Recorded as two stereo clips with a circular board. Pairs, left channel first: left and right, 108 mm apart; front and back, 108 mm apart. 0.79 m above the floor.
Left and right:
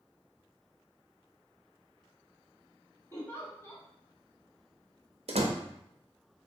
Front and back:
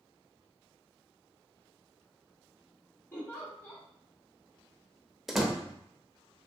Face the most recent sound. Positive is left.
turn(degrees=-90)